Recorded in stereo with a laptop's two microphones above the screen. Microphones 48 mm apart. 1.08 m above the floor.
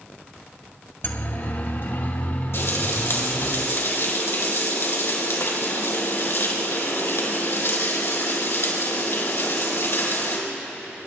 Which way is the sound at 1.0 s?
55° left (ahead or behind).